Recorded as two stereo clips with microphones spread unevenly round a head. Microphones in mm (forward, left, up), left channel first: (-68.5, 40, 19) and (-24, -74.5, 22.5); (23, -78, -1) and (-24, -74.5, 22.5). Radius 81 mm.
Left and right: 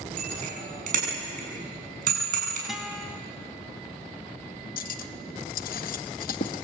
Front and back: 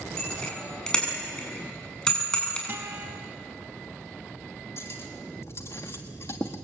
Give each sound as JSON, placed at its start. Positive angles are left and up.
{"t": 0.2, "sound": "a bicycle bell", "azimuth_deg": -80, "distance_m": 8.0}
{"t": 2.7, "sound": "a guitar", "azimuth_deg": -155, "distance_m": 3.5}
{"t": 4.8, "sound": "cutlery clinking", "azimuth_deg": 75, "distance_m": 1.0}